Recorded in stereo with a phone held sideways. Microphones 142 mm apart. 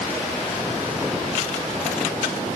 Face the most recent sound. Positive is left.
No sound to turn to.